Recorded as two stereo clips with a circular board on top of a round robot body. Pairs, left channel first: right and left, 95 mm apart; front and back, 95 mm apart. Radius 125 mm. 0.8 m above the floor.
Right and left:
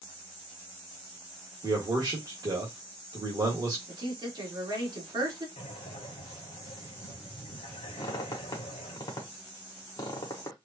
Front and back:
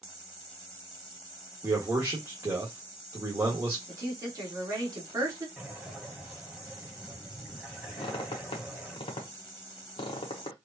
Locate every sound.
1.6 s a man speaking: 125° left, 1.7 m
3.9 s a woman speaking: 130° left, 2.5 m
5.6 s breathing: 100° right, 0.9 m
8.0 s a squeak: 35° right, 0.7 m